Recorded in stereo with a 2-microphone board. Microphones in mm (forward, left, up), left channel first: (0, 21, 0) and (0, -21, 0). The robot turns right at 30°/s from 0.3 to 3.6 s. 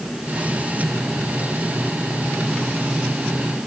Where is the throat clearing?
No throat clearing in this recording.